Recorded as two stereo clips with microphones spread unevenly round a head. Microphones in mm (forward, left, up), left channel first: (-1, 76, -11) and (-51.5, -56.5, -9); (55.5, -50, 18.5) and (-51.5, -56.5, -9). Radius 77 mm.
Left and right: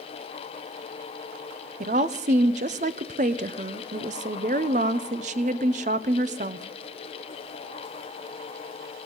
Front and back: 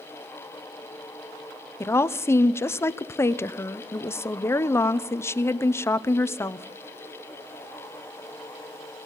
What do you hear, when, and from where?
1.8 s a woman speaking: 65° right, 0.7 m